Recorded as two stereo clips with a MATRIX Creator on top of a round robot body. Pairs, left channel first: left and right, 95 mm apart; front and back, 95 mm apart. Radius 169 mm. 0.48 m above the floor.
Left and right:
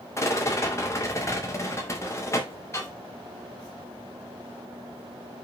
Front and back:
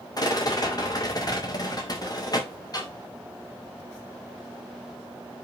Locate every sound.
0.2 s a rattle: 35° left, 2 m